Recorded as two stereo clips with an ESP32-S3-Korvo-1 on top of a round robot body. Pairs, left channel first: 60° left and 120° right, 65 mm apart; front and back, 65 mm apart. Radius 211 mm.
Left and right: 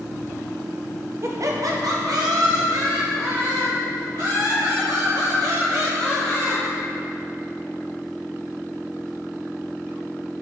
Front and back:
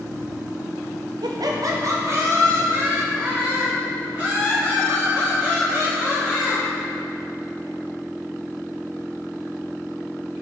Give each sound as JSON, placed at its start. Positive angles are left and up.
{"t": 1.2, "sound": "laughter", "azimuth_deg": -170, "distance_m": 0.6}